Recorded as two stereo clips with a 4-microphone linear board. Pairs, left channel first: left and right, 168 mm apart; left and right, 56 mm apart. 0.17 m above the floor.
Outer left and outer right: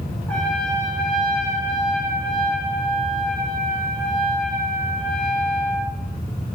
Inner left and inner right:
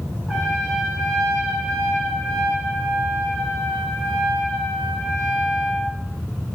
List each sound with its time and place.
0.3 s a trumpet: 5° left (ahead or behind), 8.5 m